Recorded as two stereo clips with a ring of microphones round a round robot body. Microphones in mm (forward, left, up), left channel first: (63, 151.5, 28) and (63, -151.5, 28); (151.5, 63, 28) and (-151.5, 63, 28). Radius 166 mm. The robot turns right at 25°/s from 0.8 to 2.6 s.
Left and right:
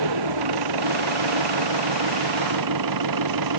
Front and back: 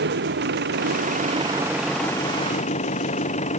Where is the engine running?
115° right; by 3.6 s 70° right.